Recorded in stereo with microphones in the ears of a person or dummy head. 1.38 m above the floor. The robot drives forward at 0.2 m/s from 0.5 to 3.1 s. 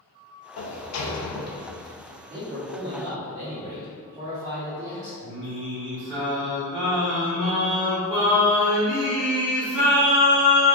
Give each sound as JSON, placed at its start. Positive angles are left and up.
{"t": 0.6, "sound": "a sliding door", "side_deg": 80, "distance_m": 0.6}
{"t": 2.3, "sound": "a man speaking", "side_deg": -20, "distance_m": 0.9}
{"t": 5.2, "sound": "singing", "side_deg": 0, "distance_m": 0.7}